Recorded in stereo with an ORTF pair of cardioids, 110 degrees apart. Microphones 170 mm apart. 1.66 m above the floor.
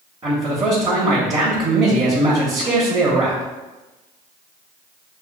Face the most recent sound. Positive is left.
turn(degrees=-20)